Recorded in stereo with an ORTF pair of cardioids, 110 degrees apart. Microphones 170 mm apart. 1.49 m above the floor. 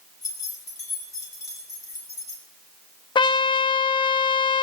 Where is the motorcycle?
No motorcycle in this recording.